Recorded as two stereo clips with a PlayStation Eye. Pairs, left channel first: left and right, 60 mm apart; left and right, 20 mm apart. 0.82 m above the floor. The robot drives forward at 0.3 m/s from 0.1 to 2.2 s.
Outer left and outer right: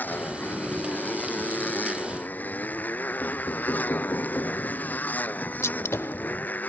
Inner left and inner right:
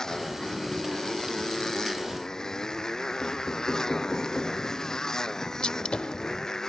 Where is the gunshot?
50° left (ahead or behind).